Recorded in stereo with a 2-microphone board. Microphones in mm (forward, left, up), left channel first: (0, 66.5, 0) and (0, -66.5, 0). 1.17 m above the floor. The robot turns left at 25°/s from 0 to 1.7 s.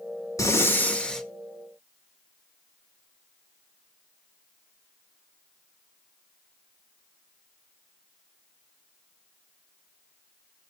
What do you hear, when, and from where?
0.4 s breathing: 25° left (ahead or behind), 1.2 m; by 1.2 s 5° left (ahead or behind), 1.2 m